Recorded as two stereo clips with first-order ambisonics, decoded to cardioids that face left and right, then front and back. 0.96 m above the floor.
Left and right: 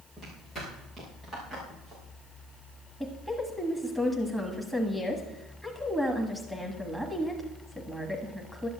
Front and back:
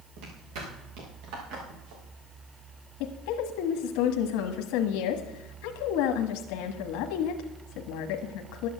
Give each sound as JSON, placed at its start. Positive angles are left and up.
{"t": 0.2, "sound": "footsteps", "azimuth_deg": 170, "distance_m": 6.0}
{"t": 3.0, "sound": "a woman speaking", "azimuth_deg": 0, "distance_m": 1.3}